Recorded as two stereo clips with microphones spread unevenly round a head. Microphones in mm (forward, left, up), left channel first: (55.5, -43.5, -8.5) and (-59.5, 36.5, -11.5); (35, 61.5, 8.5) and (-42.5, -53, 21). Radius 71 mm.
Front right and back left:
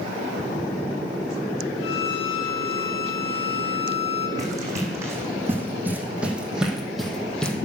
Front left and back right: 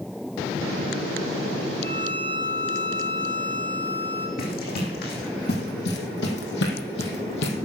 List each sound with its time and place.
1.8 s a violin: 25° right, 5 m
4.4 s running footsteps: 80° left, 3.5 m; by 7.5 s 45° left, 2.5 m